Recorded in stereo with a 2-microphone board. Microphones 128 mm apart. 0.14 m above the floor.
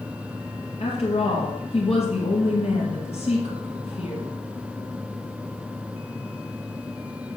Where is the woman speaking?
55° left (ahead or behind), 2.5 m.